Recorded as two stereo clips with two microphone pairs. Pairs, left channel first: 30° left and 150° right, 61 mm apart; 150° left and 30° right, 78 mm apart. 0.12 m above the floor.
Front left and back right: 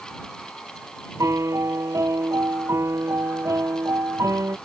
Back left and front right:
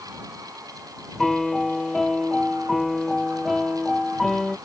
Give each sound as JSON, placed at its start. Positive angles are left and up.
{"t": 1.2, "sound": "a piano", "azimuth_deg": -125}